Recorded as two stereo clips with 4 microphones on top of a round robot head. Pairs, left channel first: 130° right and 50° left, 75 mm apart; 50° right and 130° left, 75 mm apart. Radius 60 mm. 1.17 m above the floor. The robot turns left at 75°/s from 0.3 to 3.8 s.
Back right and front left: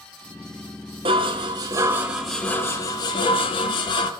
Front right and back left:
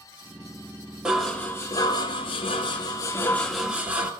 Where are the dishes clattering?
50° left, 1.6 m; by 4.1 s 160° right, 1.6 m.